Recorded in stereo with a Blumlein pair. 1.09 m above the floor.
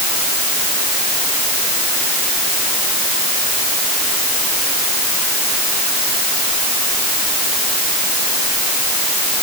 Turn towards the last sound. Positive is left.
No sound to turn to.